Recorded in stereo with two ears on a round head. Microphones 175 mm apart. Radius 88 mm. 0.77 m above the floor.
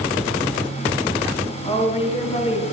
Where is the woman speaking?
30° left (ahead or behind), 7.5 m.